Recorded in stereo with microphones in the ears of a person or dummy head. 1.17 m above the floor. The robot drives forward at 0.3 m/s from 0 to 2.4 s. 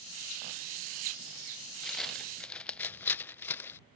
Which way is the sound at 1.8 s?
5° left (ahead or behind).